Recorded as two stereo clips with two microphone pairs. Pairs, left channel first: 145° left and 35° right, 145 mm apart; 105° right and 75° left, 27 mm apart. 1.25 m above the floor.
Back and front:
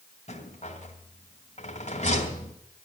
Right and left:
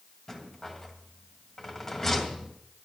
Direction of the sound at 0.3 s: Straight behind.